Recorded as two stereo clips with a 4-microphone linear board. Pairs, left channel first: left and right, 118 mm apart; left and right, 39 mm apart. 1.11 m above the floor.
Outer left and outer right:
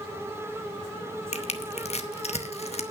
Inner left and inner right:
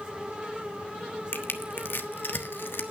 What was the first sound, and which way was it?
Crushing, 65° left (ahead or behind).